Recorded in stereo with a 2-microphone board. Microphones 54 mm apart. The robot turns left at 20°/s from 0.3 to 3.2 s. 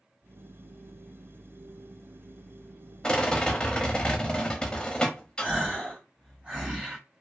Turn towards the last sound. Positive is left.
turn(degrees=-25)  # may be behind; listen again after turning